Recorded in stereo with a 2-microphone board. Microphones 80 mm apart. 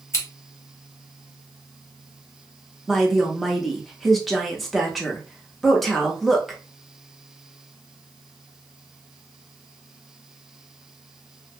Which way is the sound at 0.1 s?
35° left (ahead or behind).